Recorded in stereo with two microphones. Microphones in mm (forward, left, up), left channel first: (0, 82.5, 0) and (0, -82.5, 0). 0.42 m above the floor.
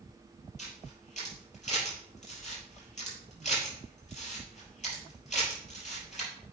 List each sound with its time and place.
0.6 s a camera shutter: 45° left (ahead or behind), 4 m